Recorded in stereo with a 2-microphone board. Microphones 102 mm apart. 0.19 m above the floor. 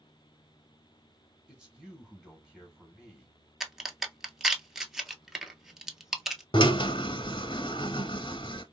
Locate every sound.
1.5 s a man speaking: 10° right (ahead or behind), 1.5 m
3.6 s a crack: 5° right (ahead or behind), 0.7 m
6.5 s a drill: 50° left (ahead or behind), 0.6 m